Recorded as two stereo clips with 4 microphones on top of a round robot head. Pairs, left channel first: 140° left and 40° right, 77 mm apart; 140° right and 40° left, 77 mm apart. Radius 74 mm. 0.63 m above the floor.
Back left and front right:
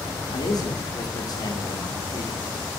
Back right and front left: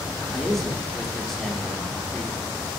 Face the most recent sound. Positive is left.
turn(degrees=140)